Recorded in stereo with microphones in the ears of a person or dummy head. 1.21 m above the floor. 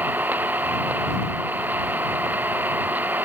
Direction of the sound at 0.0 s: 10° right (ahead or behind).